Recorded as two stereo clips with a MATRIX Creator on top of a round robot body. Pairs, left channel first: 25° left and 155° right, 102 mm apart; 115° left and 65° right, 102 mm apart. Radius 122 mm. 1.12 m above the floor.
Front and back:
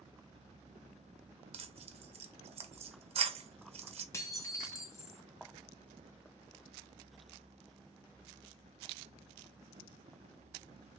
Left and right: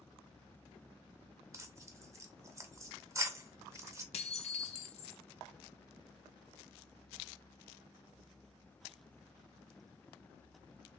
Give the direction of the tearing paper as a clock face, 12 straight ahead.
4 o'clock.